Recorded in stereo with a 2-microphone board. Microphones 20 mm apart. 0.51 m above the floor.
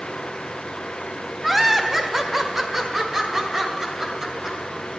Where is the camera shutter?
No camera shutter in this recording.